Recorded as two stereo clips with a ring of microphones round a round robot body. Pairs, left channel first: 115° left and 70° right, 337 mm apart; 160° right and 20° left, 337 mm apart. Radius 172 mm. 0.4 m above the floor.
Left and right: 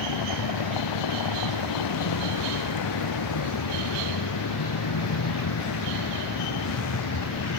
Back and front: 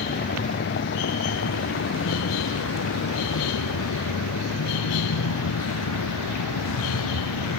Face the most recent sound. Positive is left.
turn(degrees=160)